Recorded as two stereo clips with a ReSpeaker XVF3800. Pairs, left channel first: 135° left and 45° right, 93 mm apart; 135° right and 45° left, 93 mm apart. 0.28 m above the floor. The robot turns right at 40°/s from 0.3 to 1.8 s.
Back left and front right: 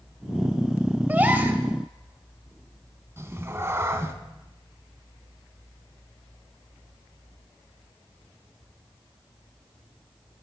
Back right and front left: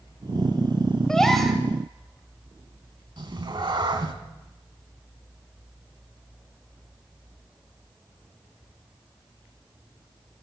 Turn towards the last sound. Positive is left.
turn(degrees=15)